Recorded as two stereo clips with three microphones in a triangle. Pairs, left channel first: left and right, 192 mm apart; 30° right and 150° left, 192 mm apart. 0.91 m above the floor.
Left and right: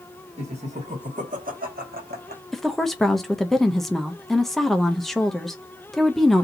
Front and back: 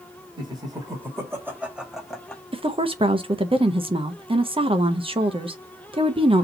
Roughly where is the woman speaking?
Behind.